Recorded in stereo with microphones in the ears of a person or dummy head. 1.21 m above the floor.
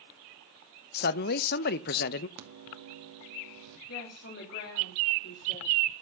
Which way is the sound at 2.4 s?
70° right (ahead or behind).